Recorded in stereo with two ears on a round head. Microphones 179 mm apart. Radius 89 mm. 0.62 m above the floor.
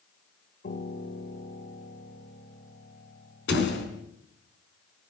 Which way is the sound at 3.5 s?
65° left (ahead or behind).